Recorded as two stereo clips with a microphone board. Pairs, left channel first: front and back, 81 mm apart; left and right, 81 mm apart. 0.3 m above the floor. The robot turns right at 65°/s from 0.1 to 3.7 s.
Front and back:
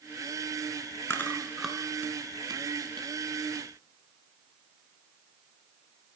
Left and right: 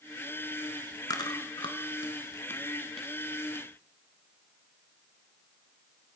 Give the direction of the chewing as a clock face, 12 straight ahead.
10 o'clock.